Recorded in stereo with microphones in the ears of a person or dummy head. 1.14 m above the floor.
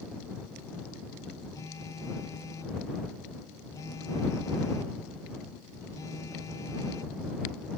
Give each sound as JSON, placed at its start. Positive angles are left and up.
{"t": 1.5, "sound": "a phone buzzing", "side_deg": 25}